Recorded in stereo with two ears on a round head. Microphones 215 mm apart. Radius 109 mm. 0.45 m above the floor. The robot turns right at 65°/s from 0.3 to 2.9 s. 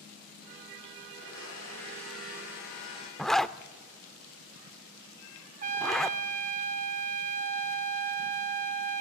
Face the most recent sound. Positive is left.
turn(degrees=-35)  # may be behind; listen again after turning